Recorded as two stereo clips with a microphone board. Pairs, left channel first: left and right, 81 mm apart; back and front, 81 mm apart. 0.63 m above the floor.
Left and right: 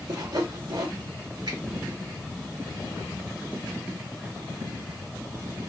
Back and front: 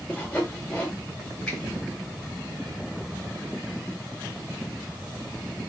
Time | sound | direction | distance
0.1 | sawing | 105° right | 1.9 m
1.5 | a finger snap | 105° right | 2.5 m